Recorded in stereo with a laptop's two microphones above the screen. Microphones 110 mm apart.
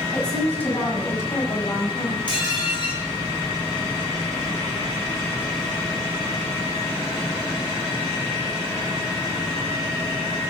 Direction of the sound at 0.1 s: 10° left (ahead or behind).